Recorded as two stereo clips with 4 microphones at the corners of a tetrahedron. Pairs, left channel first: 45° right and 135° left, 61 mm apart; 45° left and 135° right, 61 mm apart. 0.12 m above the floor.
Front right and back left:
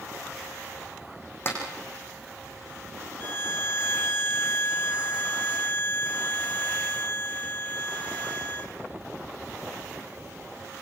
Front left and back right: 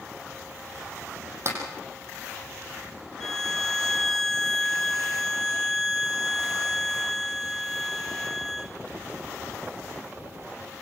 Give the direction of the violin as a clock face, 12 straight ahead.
1 o'clock.